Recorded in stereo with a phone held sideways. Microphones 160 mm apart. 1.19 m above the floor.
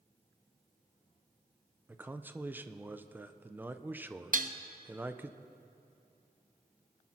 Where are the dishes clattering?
55° right (ahead or behind), 0.7 m.